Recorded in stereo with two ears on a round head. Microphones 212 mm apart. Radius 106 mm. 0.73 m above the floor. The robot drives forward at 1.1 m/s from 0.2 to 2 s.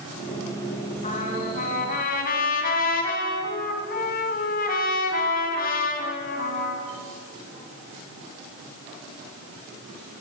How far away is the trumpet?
About 4 m.